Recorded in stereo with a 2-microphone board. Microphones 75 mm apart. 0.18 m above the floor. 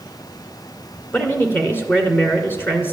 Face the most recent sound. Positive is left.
turn(degrees=30)  # may be behind; listen again after turning